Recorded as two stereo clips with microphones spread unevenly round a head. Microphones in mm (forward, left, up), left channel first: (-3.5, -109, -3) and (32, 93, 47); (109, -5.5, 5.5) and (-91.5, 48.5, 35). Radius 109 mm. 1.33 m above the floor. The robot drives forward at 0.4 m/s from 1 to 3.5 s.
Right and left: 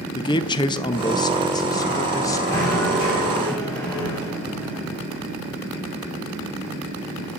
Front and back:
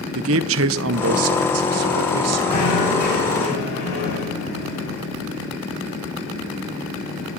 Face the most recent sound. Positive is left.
turn(degrees=-25)